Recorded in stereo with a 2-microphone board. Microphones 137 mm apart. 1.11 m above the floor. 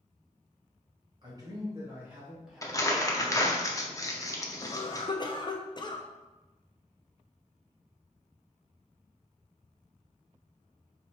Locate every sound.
1.2 s a man speaking: 35° right (ahead or behind), 1.5 m; by 3.6 s 25° left (ahead or behind), 1.7 m
2.6 s crumpling: 25° left (ahead or behind), 0.6 m
4.6 s a cough: 35° left (ahead or behind), 0.6 m